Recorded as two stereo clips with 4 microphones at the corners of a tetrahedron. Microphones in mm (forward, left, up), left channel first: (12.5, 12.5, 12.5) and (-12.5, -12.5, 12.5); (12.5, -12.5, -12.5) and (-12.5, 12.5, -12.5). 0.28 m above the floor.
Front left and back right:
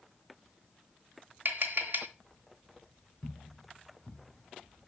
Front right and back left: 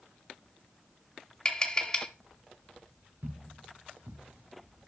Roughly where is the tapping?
Behind right.